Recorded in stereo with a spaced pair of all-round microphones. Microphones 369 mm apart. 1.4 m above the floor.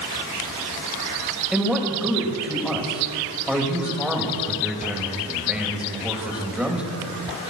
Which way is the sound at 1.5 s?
5° right (ahead or behind).